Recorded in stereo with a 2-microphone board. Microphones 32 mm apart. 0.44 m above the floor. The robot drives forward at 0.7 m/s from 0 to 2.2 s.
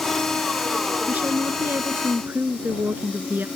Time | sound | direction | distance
1.1 | a woman speaking | 60° right (ahead or behind) | ?